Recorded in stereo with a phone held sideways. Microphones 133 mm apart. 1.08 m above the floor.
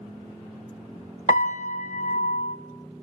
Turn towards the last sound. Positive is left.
turn(degrees=70)  # may be behind; listen again after turning